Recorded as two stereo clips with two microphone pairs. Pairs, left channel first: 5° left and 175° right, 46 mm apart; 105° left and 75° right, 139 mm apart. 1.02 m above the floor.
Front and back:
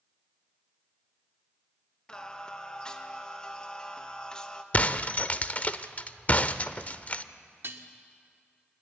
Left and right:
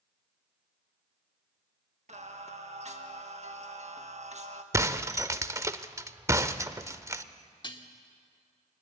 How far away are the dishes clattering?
About 1.6 m.